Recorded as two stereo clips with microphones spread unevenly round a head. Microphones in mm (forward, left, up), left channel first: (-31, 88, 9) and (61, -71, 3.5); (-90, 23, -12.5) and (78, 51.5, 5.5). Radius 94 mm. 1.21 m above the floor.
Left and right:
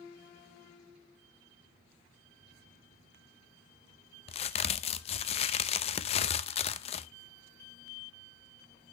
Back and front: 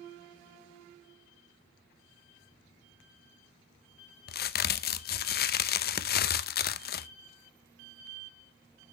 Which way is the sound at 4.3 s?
170° left.